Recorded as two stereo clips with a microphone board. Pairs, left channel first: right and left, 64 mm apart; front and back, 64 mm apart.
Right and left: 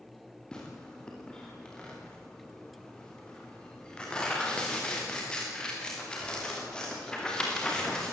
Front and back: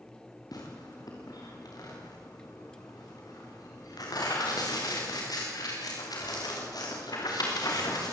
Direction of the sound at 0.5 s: 15° right.